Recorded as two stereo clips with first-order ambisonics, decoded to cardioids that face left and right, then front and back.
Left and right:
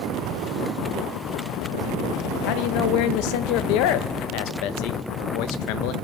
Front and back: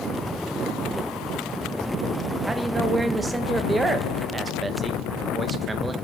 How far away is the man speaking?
About 0.7 m.